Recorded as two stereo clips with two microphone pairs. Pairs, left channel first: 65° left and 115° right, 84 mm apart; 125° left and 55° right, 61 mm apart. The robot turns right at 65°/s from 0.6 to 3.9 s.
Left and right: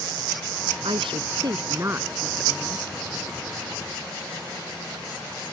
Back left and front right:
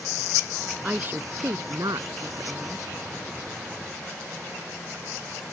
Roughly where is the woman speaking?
Behind right.